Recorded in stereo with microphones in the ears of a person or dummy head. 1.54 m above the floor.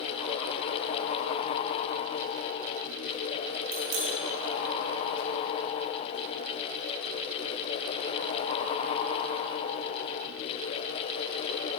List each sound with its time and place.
3.7 s a bicycle bell: 75° right (ahead or behind), 9.5 m